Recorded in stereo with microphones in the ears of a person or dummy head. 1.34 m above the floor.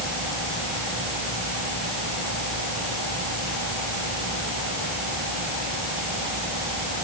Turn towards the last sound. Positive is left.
No sound to turn to.